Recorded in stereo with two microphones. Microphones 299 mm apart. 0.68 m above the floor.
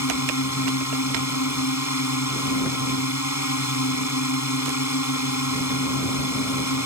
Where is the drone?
65° left (ahead or behind).